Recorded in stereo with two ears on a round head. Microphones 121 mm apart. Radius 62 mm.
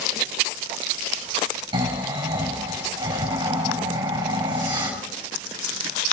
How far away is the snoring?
About 4.5 m.